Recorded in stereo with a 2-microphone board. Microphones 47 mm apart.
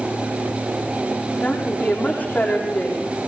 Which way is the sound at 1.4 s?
35° left (ahead or behind).